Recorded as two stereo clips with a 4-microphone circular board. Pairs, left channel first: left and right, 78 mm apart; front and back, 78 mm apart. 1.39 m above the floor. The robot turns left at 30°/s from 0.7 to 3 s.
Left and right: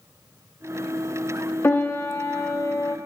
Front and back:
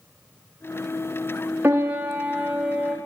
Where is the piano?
125° left, 0.9 m; by 3.0 s 85° left, 0.9 m.